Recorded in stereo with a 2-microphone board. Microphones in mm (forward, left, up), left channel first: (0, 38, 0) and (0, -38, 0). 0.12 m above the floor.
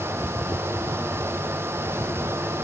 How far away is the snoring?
No snoring in this recording.